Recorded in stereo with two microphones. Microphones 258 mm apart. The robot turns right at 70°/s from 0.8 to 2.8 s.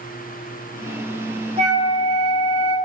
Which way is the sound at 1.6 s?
155° right.